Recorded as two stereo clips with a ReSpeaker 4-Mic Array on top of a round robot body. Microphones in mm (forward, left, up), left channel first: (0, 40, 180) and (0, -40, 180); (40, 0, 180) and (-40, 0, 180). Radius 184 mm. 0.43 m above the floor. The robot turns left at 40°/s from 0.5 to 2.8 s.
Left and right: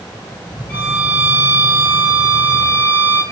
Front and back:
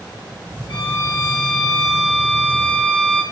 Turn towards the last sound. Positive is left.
turn(degrees=-65)